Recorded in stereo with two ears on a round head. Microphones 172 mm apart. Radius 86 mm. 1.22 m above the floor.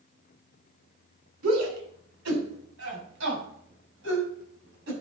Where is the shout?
75° right (ahead or behind), 3.5 m; by 4.9 s 65° right (ahead or behind), 7.5 m.